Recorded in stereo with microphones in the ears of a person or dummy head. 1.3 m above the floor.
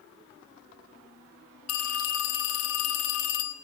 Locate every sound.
1.7 s a phone ringing: 80° left, 1.7 m